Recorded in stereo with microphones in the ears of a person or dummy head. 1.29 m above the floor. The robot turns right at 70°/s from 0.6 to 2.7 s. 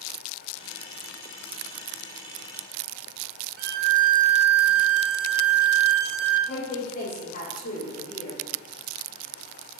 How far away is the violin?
About 1.8 m.